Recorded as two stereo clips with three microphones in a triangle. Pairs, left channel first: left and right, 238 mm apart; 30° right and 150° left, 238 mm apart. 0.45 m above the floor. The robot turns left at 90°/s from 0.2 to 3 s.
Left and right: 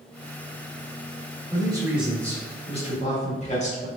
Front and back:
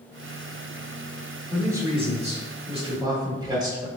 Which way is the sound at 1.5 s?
130° right.